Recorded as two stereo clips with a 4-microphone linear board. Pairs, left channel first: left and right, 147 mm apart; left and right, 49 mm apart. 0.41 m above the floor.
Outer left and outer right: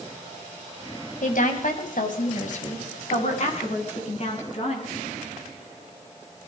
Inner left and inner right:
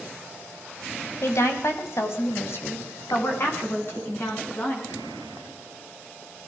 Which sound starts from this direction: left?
A woman speaking, at 1.2 s.